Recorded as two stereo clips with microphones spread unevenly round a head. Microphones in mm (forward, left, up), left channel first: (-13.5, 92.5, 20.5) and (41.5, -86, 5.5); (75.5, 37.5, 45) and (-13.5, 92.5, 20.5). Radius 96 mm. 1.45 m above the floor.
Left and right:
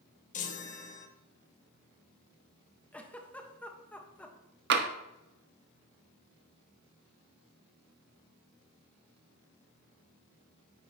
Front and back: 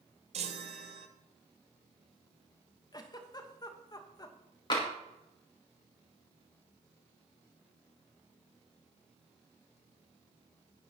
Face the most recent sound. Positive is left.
turn(degrees=-60)